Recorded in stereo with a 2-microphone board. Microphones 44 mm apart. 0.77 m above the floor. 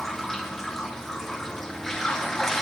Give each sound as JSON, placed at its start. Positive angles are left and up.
{"t": 0.0, "sound": "running water", "side_deg": 10, "distance_m": 4.5}